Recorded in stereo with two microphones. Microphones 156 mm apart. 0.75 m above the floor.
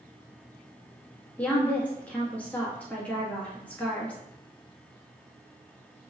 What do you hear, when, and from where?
1.4 s a woman speaking: 10° left (ahead or behind), 1.1 m